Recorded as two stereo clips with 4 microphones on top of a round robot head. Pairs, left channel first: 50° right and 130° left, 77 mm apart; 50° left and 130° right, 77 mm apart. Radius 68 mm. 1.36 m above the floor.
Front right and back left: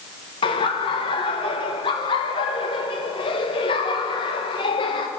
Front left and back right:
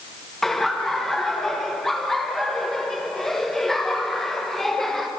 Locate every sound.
0.4 s laughter: 35° right, 1.3 m